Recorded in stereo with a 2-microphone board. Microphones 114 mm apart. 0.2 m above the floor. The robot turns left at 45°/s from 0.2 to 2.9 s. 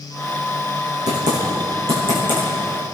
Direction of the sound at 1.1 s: 80° right.